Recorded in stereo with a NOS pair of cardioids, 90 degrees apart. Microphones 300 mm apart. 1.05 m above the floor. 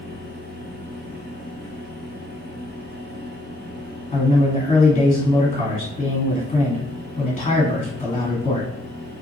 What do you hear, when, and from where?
0.0 s a fan: 35° right, 1.0 m
4.1 s a man speaking: 25° left, 1.7 m